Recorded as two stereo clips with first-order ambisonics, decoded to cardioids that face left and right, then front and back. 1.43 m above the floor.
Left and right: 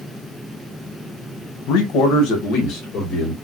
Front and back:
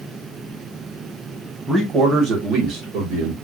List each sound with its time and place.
1.7 s a man speaking: 105° left, 1.0 m; by 3.3 s 150° left, 1.5 m